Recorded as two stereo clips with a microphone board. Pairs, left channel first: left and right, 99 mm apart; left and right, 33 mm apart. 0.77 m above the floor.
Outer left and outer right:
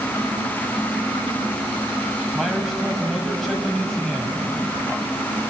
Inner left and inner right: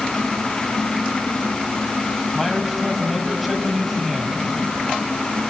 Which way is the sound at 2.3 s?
Centre (ahead or behind).